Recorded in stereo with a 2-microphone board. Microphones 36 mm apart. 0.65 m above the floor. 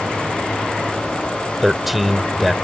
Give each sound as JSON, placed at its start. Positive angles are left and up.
{"t": 1.6, "sound": "a man speaking", "side_deg": -5}